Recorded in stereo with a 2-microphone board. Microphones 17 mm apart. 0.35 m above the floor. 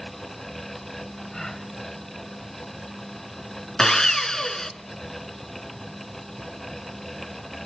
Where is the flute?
I don't hear a flute.